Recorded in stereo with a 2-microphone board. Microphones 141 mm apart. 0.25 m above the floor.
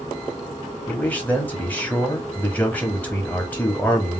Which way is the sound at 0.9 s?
10° left (ahead or behind).